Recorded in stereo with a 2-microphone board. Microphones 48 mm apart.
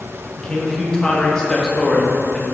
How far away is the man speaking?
About 0.7 m.